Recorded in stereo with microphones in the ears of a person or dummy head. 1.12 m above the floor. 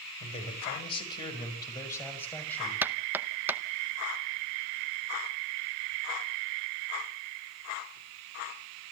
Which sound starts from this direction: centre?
Knocking, at 2.8 s.